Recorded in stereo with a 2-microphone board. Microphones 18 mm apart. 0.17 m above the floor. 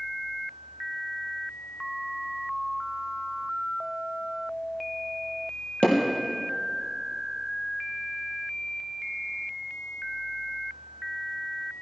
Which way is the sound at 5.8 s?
75° left (ahead or behind).